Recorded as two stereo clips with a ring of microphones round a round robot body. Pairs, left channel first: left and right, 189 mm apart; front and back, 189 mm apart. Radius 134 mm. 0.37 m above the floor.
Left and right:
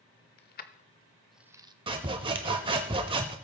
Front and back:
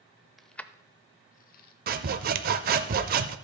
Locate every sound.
0.4 s keys jangling: 90° left, 0.8 m; by 1.7 s 30° right, 0.8 m
1.9 s sawing: 150° right, 0.5 m